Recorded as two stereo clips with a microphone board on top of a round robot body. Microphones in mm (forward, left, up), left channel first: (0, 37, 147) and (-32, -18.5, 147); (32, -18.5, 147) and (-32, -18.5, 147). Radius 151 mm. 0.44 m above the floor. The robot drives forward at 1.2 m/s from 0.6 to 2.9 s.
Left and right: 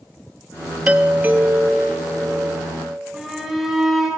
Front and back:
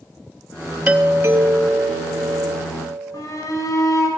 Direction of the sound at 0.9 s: 135° right.